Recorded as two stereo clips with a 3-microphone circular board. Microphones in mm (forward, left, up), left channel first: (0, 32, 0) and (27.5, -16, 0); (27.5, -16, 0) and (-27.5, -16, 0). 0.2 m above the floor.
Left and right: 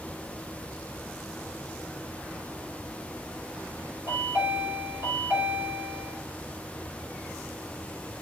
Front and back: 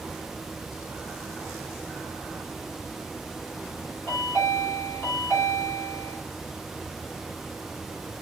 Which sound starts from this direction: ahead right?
A chime, at 4.1 s.